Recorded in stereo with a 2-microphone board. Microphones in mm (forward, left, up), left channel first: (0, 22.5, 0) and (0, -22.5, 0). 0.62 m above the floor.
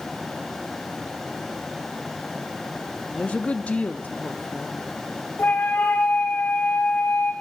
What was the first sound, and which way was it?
A woman speaking, 30° left (ahead or behind).